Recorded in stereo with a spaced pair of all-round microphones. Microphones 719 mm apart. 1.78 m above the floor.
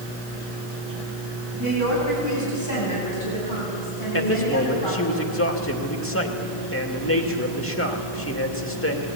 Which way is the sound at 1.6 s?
20° left (ahead or behind).